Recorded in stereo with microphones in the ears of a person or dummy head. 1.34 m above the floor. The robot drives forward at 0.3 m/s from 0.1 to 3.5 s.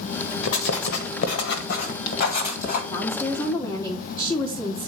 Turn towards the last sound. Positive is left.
turn(degrees=25)  # may be behind; listen again after turning